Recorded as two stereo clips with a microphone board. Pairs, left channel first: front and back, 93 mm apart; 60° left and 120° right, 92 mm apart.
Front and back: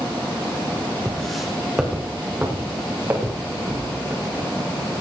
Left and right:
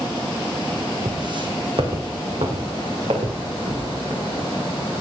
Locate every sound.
1.1 s footsteps: 80° right, 3.5 m; by 4.4 s 125° right, 7 m